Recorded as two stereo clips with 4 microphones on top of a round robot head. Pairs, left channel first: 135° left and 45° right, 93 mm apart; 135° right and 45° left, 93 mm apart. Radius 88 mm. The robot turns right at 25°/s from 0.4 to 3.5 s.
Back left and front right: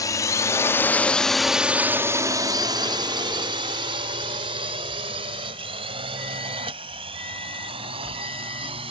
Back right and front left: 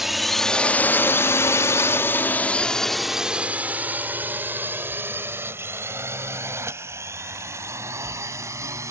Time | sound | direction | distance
0.0 | a drone | 130° left | ?